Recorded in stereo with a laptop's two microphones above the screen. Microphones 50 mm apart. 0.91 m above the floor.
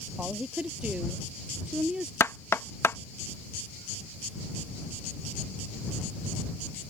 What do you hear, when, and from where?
0.2 s a woman speaking: 25° right (ahead or behind); by 2.1 s 20° right (ahead or behind)
2.2 s knocking: 60° left (ahead or behind)